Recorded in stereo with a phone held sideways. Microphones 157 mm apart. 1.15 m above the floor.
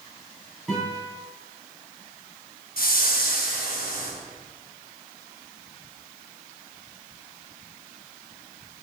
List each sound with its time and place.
0.7 s a guitar: 5° left (ahead or behind), 3 m
2.8 s a whoosh: 70° left (ahead or behind), 1.6 m